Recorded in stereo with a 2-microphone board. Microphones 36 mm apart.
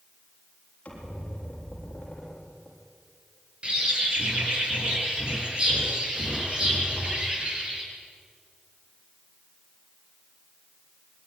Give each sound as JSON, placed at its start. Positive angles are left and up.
{"t": 0.8, "sound": "a squeak", "side_deg": 30, "distance_m": 7.0}
{"t": 3.6, "sound": "a bird", "side_deg": -30, "distance_m": 6.5}